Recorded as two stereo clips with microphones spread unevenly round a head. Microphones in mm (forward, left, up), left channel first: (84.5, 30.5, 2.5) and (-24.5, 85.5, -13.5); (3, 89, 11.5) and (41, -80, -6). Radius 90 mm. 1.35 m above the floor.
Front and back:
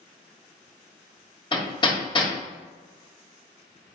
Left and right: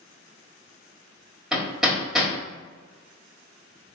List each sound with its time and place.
1.5 s hammering: 15° left, 1.4 m